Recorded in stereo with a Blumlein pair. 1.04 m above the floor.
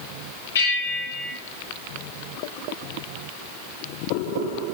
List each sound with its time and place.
0.6 s a bell: 65° left, 3 m